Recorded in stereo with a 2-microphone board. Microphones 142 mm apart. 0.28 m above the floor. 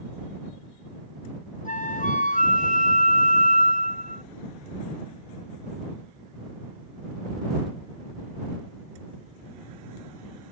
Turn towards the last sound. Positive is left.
turn(degrees=65)  # may be behind; listen again after turning